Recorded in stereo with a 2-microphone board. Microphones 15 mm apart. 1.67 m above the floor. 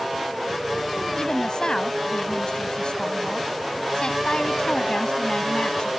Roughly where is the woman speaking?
Left.